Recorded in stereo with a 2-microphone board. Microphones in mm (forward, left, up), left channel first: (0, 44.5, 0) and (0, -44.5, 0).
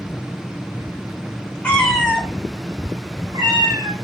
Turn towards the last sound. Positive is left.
turn(degrees=-65)  # may be behind; listen again after turning